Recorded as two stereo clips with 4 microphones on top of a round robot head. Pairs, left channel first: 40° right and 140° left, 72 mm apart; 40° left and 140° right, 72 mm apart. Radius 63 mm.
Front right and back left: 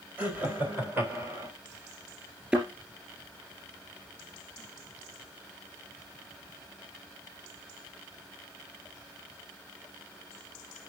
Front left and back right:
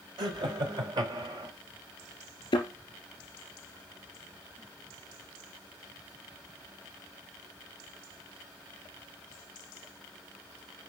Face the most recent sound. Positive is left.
turn(degrees=70)